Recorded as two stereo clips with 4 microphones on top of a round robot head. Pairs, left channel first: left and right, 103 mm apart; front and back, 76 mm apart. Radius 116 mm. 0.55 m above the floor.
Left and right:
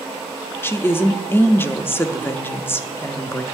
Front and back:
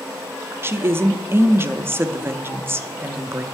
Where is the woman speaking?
145° left, 0.7 m.